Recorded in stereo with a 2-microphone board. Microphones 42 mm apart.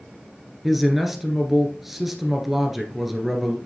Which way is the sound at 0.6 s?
5° right (ahead or behind).